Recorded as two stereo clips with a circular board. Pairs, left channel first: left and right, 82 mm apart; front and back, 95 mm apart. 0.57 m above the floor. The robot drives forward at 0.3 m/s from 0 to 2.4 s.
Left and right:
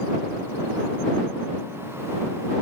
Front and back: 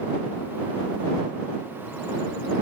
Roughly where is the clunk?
I don't hear a clunk.